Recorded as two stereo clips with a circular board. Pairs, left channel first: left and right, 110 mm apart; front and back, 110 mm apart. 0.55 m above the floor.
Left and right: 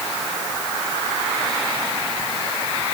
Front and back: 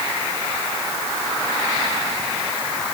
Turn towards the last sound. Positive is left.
No sound to turn to.